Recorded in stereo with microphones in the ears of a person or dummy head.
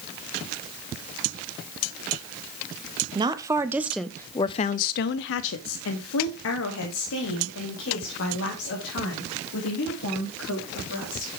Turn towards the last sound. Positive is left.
turn(degrees=65)  # may be behind; listen again after turning